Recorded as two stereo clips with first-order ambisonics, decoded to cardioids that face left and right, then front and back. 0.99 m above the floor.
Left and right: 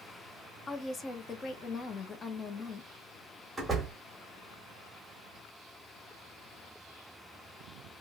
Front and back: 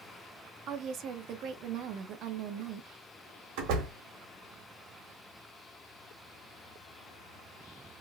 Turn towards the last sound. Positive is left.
turn(degrees=-175)